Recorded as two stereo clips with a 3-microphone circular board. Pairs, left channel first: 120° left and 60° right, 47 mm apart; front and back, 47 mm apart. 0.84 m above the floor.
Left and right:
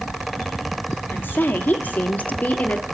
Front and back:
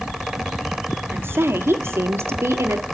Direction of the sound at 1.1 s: 155° left.